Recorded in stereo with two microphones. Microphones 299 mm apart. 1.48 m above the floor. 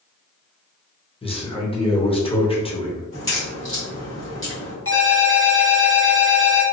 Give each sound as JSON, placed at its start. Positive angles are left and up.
{"t": 1.2, "sound": "a man speaking", "side_deg": 20, "distance_m": 0.8}
{"t": 3.1, "sound": "a crack", "side_deg": 40, "distance_m": 1.4}
{"t": 4.8, "sound": "a ringtone", "side_deg": 45, "distance_m": 1.2}